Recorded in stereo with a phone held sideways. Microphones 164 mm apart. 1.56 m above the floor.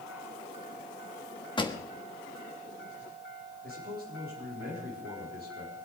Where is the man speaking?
70° right (ahead or behind), 4 m.